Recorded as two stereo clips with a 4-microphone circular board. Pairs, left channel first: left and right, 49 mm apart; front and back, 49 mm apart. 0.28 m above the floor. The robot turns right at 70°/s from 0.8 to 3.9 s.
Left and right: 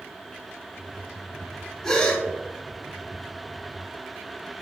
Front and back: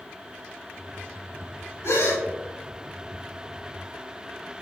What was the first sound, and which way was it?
A gasp, 10° left.